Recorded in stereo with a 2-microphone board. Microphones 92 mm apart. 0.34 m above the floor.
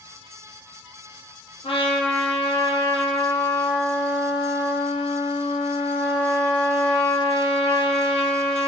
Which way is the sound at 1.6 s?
70° left (ahead or behind).